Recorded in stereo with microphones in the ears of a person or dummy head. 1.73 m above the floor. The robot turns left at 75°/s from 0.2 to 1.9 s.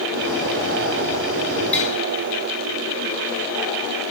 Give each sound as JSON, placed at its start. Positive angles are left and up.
{"t": 1.7, "sound": "tapping", "side_deg": 10, "distance_m": 1.5}